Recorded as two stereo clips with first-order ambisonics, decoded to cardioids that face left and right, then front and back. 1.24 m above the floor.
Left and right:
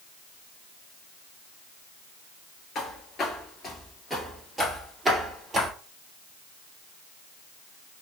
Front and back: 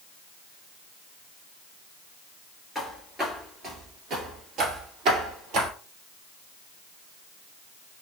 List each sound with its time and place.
2.8 s footsteps: 105° left, 1.4 m; by 5.7 s 165° right, 1.9 m